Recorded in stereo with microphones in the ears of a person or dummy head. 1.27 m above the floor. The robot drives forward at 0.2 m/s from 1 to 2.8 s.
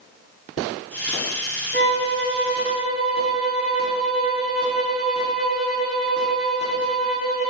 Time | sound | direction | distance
1.7 | a violin | 55° left (ahead or behind) | 1.9 m